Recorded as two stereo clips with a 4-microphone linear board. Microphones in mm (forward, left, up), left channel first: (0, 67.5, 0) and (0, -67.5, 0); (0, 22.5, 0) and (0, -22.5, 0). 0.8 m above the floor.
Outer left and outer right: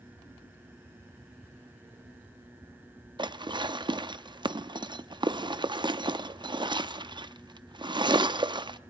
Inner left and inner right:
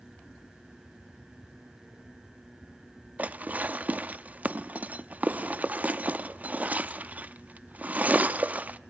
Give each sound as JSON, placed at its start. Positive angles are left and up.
{"t": 3.2, "sound": "dishes clattering", "side_deg": -35, "distance_m": 0.5}